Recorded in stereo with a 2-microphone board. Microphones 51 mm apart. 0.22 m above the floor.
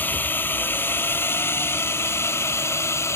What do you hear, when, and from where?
0.0 s a drone: 40° left (ahead or behind); by 3.2 s 65° left (ahead or behind)